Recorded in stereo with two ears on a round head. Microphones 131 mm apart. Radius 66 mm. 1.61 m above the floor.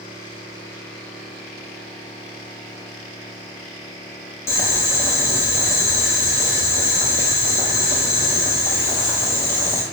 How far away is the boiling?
About 0.8 m.